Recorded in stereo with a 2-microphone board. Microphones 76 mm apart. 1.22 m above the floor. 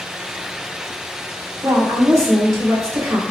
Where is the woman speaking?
40° right (ahead or behind), 1.5 m.